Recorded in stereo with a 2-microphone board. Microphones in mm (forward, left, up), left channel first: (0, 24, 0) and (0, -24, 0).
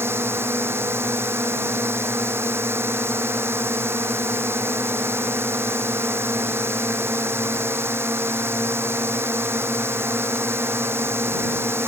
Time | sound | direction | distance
0.0 | a drone | 60° right (ahead or behind) | ?